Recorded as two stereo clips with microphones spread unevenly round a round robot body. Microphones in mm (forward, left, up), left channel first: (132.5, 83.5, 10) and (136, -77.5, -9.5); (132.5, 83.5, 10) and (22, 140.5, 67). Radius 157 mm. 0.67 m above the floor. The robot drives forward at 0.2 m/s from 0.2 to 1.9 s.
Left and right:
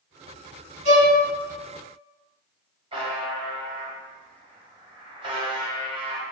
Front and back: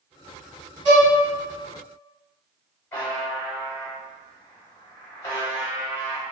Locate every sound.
0.8 s a violin: 140° right, 1.1 m
2.9 s a buzzer: 55° right, 0.7 m